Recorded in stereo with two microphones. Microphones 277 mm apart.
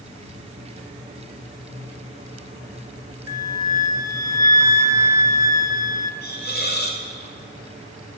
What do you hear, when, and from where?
3.3 s a flute: 10° right (ahead or behind), 1.1 m
6.2 s a hiss: 35° left (ahead or behind), 3.5 m